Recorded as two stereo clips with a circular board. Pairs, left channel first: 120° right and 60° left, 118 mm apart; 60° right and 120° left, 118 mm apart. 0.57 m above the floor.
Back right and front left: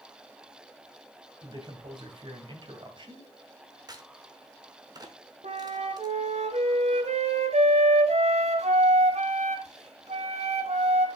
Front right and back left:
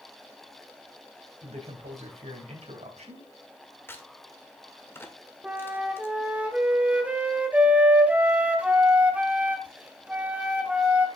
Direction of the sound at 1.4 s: 105° left.